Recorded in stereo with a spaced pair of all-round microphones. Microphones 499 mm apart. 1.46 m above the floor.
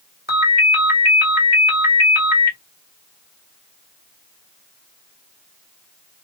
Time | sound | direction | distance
0.3 | a ringtone | 20° left (ahead or behind) | 1.9 m